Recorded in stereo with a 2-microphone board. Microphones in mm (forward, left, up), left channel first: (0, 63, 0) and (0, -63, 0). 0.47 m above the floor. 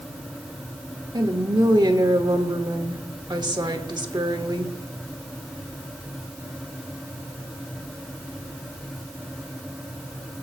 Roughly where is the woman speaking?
Right.